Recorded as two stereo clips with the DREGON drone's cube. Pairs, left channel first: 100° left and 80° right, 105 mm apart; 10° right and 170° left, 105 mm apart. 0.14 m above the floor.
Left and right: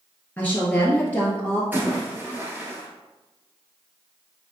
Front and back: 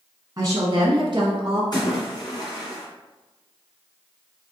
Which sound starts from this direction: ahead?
A splash, at 1.7 s.